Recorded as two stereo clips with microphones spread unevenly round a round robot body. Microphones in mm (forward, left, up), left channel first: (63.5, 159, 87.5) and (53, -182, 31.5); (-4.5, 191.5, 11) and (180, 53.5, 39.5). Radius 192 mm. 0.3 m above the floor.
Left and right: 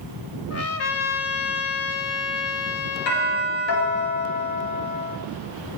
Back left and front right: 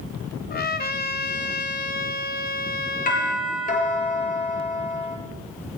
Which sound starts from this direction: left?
A doorbell, at 3.1 s.